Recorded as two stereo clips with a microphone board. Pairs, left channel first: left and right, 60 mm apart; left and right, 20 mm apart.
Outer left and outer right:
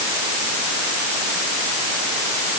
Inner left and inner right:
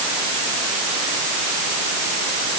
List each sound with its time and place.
Only background noise.